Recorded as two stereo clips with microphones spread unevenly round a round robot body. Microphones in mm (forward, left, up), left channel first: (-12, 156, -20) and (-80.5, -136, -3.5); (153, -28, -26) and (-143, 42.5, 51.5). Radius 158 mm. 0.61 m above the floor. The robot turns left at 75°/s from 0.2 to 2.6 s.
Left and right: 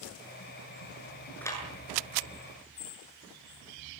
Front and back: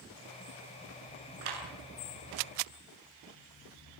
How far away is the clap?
About 8 m.